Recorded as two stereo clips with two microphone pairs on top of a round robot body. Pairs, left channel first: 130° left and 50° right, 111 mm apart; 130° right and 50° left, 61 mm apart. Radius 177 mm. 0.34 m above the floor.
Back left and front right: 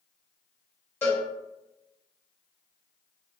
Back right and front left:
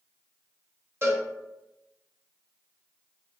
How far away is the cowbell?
About 1.6 m.